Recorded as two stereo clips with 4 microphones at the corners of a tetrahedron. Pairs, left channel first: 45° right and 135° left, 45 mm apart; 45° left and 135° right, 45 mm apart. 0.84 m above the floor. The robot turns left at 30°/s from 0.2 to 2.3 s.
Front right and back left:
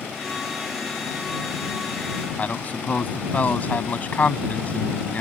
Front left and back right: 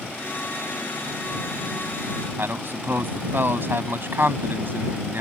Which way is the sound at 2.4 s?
100° right.